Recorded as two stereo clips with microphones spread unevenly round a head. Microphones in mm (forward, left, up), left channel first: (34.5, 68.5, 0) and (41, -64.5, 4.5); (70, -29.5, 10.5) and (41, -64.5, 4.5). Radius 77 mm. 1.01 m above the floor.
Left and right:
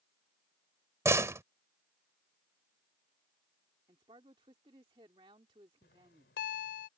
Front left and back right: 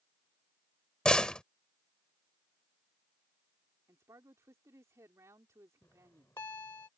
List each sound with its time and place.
1.1 s a door slam: 20° right
3.9 s a man speaking: 150° right
5.8 s a bell: 115° left